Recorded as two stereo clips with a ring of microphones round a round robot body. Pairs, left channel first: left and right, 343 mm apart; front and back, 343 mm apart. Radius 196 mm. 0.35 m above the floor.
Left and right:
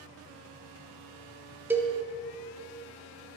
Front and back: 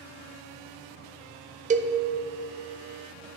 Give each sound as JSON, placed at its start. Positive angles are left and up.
{"t": 1.7, "sound": "a cowbell", "azimuth_deg": -165, "distance_m": 0.5}